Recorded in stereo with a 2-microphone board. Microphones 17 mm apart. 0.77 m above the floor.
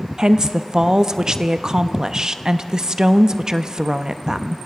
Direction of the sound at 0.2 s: 40° right (ahead or behind).